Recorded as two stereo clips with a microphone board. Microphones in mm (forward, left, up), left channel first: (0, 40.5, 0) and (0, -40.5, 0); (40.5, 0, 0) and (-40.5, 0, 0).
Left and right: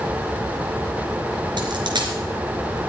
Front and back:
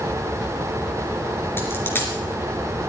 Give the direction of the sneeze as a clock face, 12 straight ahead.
No sneeze in this recording.